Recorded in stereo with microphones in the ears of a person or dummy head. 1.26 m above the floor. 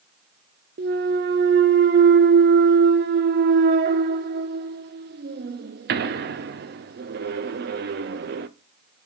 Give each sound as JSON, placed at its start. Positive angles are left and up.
{"t": 0.8, "sound": "a clunk", "side_deg": -45, "distance_m": 0.7}